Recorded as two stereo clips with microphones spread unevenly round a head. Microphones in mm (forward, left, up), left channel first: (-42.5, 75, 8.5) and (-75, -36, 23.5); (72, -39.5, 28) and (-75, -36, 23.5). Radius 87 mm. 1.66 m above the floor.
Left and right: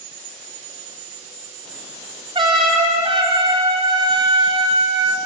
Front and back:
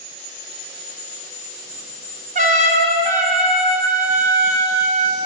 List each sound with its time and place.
2.4 s a trumpet: 145° right, 6.5 m